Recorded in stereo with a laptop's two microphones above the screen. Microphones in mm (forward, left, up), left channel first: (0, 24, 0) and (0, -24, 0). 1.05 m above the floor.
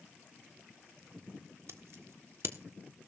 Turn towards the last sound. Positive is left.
turn(degrees=-70)  # may be behind; listen again after turning